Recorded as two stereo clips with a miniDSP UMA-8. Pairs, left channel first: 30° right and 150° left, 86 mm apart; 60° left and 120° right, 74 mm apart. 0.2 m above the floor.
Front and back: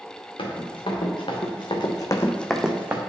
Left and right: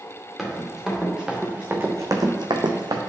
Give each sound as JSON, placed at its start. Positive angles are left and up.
{"t": 0.4, "sound": "running footsteps", "azimuth_deg": -30, "distance_m": 2.5}